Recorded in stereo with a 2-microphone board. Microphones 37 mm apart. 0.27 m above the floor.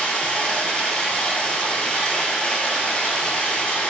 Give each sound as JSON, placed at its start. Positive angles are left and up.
{"t": 0.0, "sound": "running water", "side_deg": 20, "distance_m": 0.9}